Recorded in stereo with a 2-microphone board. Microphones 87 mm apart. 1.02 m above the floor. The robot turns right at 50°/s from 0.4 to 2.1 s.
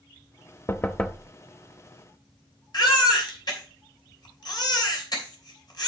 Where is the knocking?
150° left, 0.6 m; by 1.3 s straight behind, 0.6 m.